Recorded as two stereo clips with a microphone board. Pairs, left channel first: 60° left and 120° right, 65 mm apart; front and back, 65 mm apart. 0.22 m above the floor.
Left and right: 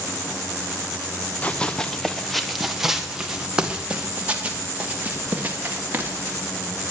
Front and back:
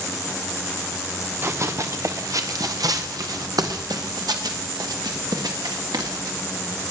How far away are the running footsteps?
About 1.3 m.